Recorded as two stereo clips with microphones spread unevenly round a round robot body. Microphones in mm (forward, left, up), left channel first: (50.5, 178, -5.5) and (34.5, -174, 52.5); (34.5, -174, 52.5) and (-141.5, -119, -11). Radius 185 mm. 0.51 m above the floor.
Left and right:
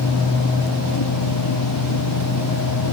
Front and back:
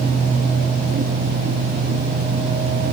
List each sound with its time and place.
Only background noise.